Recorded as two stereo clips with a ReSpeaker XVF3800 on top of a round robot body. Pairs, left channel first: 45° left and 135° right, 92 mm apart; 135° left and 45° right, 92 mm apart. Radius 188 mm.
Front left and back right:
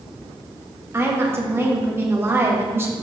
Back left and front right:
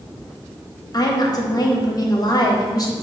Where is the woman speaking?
165° left, 1.1 m.